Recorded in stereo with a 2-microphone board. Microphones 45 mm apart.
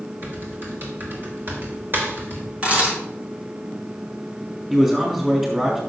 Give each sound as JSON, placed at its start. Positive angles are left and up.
{"t": 0.2, "sound": "typing on a keyboard", "side_deg": -50, "distance_m": 3.0}
{"t": 2.6, "sound": "a camera shutter", "side_deg": -30, "distance_m": 5.0}
{"t": 4.7, "sound": "a man speaking", "side_deg": -10, "distance_m": 3.0}